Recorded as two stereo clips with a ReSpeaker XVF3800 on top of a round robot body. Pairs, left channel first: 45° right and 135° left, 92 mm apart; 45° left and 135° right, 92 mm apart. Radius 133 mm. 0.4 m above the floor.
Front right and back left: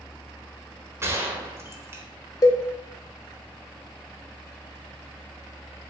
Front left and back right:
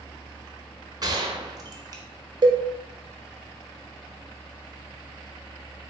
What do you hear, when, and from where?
1.0 s a gunshot: 170° right, 0.9 m
2.4 s a cowbell: 95° right, 0.7 m